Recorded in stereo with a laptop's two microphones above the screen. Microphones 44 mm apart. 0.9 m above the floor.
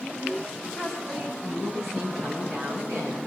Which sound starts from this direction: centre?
A woman speaking, at 0.8 s.